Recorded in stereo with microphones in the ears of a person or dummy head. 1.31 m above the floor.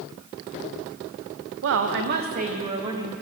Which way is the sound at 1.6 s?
65° right (ahead or behind).